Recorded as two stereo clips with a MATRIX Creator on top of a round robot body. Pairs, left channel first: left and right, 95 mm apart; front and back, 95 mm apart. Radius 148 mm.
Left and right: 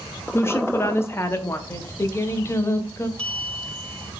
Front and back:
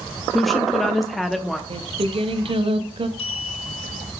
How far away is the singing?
About 0.7 m.